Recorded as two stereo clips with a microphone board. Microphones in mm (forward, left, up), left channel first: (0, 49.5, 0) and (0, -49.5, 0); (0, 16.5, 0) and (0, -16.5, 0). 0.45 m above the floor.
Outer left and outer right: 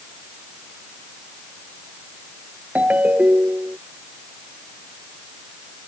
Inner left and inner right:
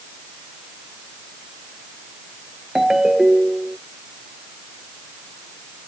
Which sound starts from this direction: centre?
A ringtone, at 2.8 s.